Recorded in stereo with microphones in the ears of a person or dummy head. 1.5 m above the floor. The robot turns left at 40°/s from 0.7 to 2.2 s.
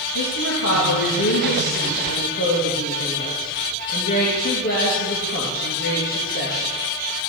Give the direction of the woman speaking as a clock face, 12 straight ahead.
8 o'clock.